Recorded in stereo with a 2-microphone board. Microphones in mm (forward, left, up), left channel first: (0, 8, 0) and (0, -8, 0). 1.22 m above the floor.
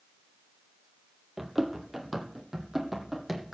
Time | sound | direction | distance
1.4 | running footsteps | 20° right (ahead or behind) | 1.4 m